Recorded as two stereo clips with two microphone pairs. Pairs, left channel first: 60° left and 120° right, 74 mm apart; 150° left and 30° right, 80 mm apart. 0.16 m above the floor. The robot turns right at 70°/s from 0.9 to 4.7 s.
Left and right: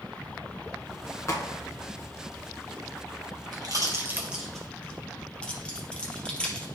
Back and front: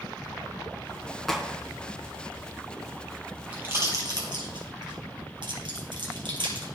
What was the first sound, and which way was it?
A crack, 65° left.